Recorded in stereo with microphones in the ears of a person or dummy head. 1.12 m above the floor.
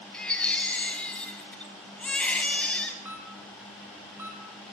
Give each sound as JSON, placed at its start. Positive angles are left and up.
{"t": 0.1, "sound": "a baby crying", "side_deg": 5, "distance_m": 3.0}
{"t": 3.0, "sound": "a camera shutter", "side_deg": -15, "distance_m": 5.5}